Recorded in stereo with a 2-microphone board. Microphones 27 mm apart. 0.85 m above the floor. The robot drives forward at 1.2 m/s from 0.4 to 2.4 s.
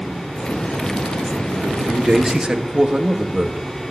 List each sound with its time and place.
1.6 s a man speaking: 25° right (ahead or behind), 1.9 m; by 3.6 s 40° right (ahead or behind), 1.3 m